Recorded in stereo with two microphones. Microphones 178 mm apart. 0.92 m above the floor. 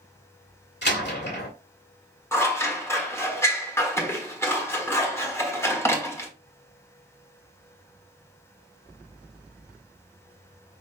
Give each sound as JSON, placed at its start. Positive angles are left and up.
{"t": 0.8, "sound": "a door slam", "side_deg": 75, "distance_m": 1.6}
{"t": 2.3, "sound": "scissors", "side_deg": 15, "distance_m": 1.3}